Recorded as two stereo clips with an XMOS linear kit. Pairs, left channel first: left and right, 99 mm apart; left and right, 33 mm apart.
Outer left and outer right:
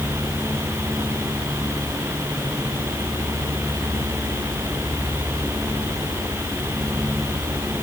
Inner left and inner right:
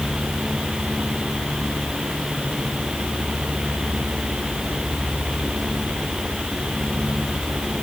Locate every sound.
Only background noise.